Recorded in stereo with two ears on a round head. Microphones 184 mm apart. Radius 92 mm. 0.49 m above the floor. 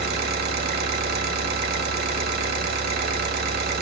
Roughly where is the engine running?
Right.